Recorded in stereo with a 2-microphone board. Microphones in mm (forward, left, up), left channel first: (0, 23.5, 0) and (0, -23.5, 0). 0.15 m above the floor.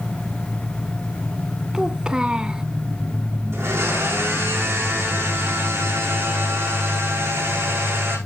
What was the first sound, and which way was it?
A child speaking, 15° right (ahead or behind).